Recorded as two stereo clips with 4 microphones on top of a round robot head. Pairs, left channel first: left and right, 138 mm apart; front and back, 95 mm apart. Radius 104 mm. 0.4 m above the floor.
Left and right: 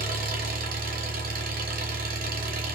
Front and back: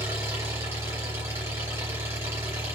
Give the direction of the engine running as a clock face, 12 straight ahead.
4 o'clock.